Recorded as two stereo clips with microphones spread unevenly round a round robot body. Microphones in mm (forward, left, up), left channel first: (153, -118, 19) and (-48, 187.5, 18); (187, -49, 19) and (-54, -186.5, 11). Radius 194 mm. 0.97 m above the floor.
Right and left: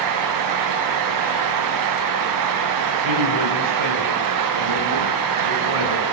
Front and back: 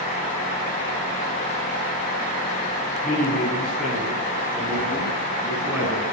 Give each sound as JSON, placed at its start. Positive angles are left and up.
{"t": 3.0, "sound": "a man speaking", "azimuth_deg": 115, "distance_m": 8.0}